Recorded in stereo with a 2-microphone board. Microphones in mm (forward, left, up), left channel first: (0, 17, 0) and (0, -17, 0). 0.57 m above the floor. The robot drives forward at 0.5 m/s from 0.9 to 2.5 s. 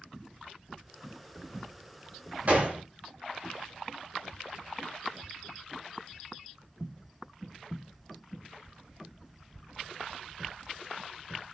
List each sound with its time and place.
2.5 s a gunshot: 45° right (ahead or behind), 1.8 m